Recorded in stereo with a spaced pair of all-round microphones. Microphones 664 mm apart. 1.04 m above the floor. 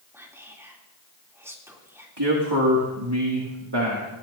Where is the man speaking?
40° right (ahead or behind), 2 m.